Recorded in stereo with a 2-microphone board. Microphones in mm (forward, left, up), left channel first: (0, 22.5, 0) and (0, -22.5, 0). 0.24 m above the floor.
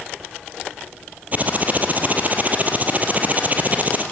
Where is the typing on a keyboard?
35° right (ahead or behind), 3 m.